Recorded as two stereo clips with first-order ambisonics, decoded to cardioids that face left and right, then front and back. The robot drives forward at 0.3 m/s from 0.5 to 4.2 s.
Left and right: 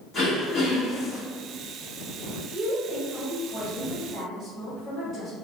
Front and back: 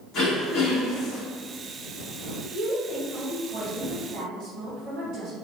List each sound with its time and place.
0.1 s throat clearing: 30° left, 1.5 m; by 1.2 s 35° left, 1.3 m
2.5 s a woman speaking: 170° left, 1.7 m